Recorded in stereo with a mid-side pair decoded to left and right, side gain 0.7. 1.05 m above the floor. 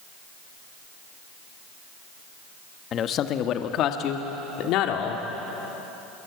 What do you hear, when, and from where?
2.9 s a man speaking: 40° left, 1.4 m; by 5.2 s 65° left, 3 m